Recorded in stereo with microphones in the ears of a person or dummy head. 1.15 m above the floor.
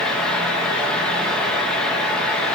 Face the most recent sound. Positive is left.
turn(degrees=5)  # may be behind; listen again after turning